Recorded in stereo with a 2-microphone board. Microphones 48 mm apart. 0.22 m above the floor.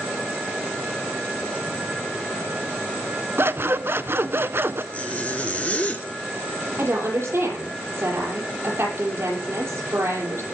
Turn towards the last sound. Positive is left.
turn(degrees=-60)  # may be behind; listen again after turning